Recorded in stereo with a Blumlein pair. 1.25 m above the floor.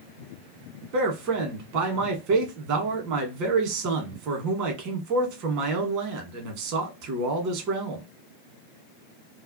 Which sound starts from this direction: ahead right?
A man speaking, at 0.9 s.